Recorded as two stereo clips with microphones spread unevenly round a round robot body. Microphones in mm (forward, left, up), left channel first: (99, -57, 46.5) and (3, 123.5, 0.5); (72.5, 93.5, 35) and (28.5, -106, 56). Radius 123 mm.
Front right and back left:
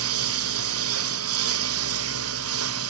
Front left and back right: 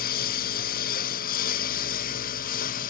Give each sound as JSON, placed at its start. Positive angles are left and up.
{"t": 0.0, "sound": "a lawn mower", "azimuth_deg": 130}